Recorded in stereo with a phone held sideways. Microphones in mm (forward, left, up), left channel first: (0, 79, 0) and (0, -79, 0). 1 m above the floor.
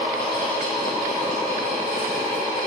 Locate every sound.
0.0 s a fan: 20° left (ahead or behind), 1.3 m